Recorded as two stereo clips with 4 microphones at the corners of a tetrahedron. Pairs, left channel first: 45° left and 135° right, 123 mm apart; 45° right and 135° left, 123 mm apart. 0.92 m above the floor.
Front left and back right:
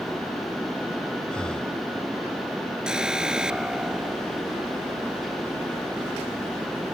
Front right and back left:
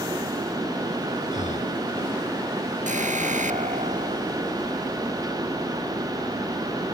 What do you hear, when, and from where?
1.3 s breathing: 35° right
2.9 s an alarm: 140° left